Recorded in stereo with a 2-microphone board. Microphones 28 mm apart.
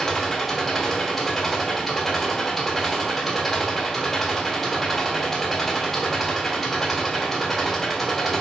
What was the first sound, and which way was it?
An engine running, 5° left (ahead or behind).